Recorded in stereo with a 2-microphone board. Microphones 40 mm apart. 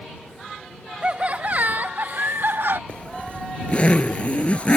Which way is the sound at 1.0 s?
30° right (ahead or behind).